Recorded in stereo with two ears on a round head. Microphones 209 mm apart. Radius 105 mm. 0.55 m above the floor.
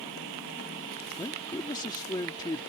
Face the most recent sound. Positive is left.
turn(degrees=15)  # may be behind; listen again after turning